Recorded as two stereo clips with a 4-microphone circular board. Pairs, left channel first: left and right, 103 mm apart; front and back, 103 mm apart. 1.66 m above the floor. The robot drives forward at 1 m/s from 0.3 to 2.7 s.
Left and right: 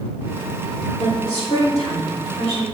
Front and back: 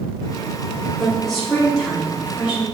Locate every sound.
1.0 s a woman speaking: 85° left, 3.5 m; by 2.6 s 110° left, 4 m